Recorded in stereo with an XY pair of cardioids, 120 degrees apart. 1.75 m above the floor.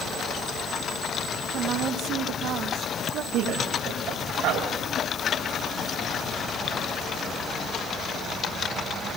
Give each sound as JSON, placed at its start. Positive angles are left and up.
{"t": 1.5, "sound": "a woman speaking", "azimuth_deg": -65, "distance_m": 1.7}
{"t": 3.3, "sound": "a man speaking", "azimuth_deg": -70, "distance_m": 8.5}